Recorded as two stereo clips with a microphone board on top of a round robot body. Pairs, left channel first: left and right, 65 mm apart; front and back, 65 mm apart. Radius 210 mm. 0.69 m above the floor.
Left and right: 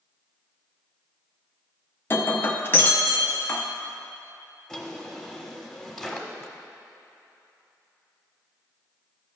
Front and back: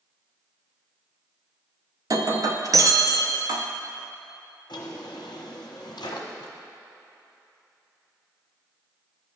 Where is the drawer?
5° left, 1.0 m.